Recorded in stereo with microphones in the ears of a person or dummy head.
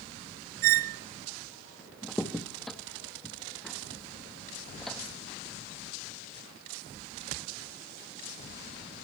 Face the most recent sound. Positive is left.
turn(degrees=0)  # may be behind; listen again after turning